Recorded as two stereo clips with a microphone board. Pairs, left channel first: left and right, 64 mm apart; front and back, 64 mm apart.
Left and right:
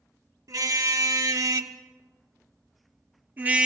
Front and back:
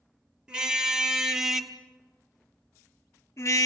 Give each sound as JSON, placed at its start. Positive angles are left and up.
{"t": 0.5, "sound": "a car horn", "azimuth_deg": -105, "distance_m": 2.0}